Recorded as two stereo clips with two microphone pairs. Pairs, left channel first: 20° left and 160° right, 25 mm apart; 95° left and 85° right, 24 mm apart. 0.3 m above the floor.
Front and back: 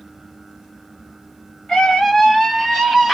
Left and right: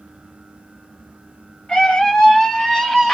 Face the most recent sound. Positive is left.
turn(degrees=115)